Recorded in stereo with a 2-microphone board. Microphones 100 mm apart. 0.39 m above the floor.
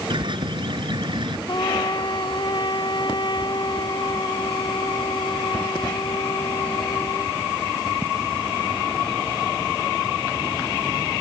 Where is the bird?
55° right (ahead or behind).